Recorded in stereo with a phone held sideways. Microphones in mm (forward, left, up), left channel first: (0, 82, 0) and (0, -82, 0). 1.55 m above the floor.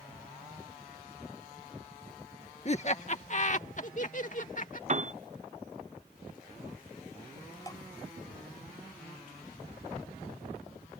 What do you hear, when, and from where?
2.6 s laughter: 45° left (ahead or behind); by 4.8 s 55° left (ahead or behind)
4.9 s a piano: 45° right (ahead or behind)
7.7 s dripping: 20° left (ahead or behind)